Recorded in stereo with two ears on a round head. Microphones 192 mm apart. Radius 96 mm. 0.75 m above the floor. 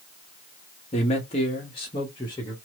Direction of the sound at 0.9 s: 30° left (ahead or behind).